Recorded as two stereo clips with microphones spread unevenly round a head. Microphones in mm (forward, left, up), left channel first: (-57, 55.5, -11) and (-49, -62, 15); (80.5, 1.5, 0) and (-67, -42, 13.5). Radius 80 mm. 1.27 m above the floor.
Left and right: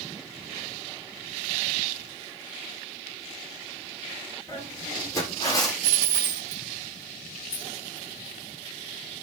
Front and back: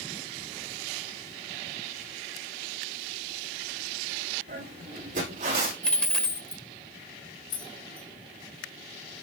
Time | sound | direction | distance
4.5 | footsteps | 160° left | 4.5 m
5.8 | a dropped coin | 70° right | 0.8 m
7.5 | keys jangling | 60° left | 1.4 m